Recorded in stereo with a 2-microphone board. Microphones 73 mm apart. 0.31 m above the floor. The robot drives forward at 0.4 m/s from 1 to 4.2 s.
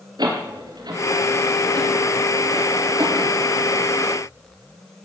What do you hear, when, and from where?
0.2 s a door slam: 75° right (ahead or behind), 5 m; by 3.3 s 80° right, 4.5 m